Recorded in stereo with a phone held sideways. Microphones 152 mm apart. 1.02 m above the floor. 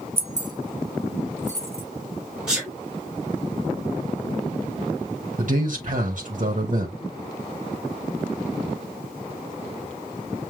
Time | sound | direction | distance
0.2 | keys jangling | 40° right (ahead or behind) | 0.7 m
2.5 | a sneeze | 5° right (ahead or behind) | 4 m
5.4 | a man speaking | 55° right (ahead or behind) | 1.4 m